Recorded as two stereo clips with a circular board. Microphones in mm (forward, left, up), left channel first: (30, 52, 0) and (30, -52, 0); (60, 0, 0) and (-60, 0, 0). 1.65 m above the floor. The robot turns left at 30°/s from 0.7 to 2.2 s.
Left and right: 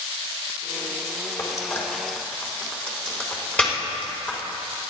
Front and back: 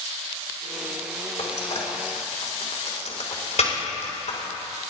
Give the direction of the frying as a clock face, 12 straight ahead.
11 o'clock.